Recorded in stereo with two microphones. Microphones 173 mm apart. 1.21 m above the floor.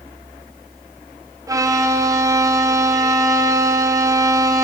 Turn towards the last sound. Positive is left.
turn(degrees=-20)  # may be behind; listen again after turning